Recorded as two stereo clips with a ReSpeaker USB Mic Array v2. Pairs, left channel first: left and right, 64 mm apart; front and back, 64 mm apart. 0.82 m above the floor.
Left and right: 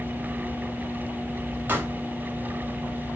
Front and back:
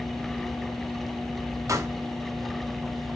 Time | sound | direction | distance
1.7 | a pop | 150° right | 3 m